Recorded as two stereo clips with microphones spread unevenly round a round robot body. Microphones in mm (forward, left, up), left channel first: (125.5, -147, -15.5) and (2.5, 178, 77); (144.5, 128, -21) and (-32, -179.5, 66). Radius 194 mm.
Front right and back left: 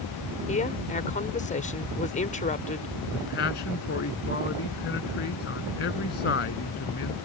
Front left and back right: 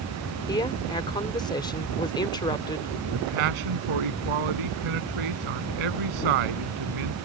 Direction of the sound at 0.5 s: 10° right.